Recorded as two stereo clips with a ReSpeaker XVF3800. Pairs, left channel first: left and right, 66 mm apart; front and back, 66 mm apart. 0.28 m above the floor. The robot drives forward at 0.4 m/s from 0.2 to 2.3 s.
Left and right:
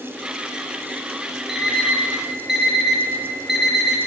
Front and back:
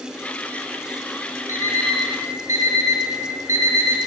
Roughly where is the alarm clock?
Behind.